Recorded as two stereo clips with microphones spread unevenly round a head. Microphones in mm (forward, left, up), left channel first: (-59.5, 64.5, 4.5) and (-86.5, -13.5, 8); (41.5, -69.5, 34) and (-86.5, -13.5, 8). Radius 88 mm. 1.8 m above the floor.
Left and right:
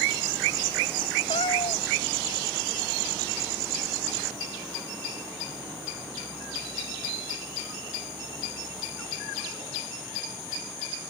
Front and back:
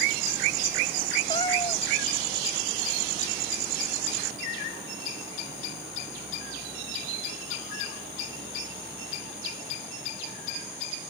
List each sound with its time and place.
1.3 s a cat meowing: 35° left